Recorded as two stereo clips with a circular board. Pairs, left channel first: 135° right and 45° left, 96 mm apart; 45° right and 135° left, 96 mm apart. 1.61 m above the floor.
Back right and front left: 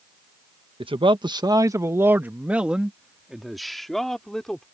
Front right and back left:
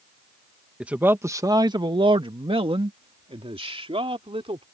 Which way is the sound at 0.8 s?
55° left.